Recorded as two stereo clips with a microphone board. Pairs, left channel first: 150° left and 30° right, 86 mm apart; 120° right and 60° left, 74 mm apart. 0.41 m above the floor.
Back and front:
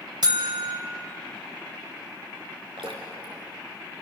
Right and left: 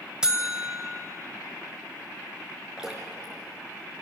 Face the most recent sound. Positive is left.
turn(degrees=-20)